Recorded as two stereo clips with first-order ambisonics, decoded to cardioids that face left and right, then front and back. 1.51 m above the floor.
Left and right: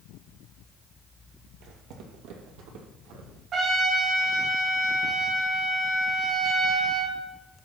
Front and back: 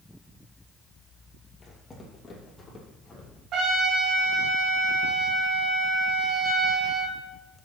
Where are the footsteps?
75° right, 3 m.